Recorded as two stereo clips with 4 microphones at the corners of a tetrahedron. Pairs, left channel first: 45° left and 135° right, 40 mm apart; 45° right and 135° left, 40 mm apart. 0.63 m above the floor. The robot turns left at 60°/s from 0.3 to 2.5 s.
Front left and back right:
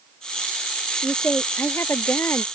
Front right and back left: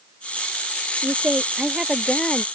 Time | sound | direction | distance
1.0 | a woman speaking | 105° left | ?